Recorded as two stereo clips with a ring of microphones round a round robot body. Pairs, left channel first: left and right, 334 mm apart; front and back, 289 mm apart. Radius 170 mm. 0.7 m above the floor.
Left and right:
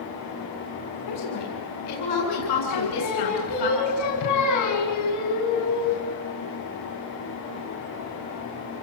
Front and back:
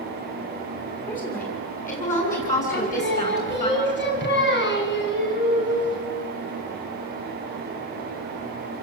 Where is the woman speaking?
60° left, 8.5 m; by 3.7 s 65° left, 11 m.